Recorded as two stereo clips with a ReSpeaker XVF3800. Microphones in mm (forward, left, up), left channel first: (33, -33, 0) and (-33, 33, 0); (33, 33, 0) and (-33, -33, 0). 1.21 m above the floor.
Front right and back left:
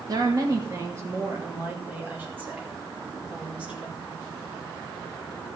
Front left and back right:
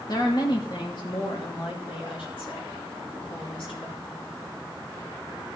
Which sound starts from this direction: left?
A woman speaking, at 0.1 s.